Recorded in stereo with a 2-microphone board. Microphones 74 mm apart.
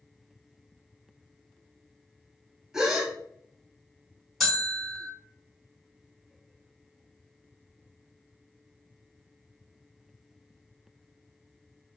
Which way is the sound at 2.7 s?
5° right (ahead or behind).